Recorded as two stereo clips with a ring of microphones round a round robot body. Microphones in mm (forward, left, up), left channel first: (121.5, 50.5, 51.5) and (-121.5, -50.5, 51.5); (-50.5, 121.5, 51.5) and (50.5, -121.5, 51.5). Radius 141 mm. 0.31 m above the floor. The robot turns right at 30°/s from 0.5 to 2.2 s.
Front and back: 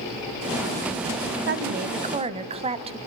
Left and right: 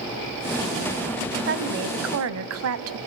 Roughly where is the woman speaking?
Behind right.